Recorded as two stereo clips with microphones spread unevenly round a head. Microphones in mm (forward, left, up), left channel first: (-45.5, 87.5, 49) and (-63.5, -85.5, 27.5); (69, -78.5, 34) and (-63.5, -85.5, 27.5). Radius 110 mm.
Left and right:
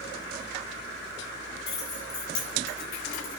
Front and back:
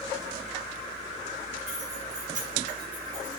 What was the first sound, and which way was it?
Keys jangling, 105° left.